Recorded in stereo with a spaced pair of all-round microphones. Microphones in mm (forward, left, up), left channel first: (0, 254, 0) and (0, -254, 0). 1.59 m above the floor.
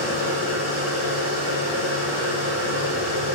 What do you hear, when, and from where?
0.0 s a machine running: 65° left (ahead or behind), 4 m